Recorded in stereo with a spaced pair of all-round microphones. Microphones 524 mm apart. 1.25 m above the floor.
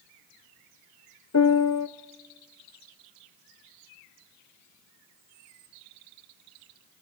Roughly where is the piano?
Left.